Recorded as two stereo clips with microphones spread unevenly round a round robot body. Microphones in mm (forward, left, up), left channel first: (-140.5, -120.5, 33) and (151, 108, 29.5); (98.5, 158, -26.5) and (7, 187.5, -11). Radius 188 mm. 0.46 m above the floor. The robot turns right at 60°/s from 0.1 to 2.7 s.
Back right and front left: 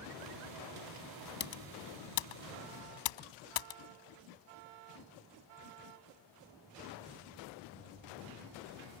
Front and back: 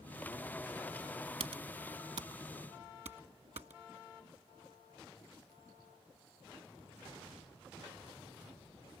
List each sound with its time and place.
1.4 s typing on a keyboard: 150° left; by 3.8 s 130° right